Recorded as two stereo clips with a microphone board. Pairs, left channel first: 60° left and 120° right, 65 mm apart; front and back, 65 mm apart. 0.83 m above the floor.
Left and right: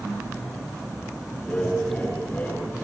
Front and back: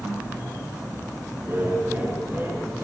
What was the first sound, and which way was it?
Laughter, 125° left.